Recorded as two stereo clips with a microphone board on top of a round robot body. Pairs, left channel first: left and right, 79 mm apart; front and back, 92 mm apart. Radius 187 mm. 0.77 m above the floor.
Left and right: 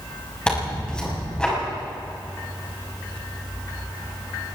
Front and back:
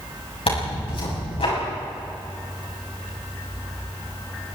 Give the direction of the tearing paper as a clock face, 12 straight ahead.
12 o'clock.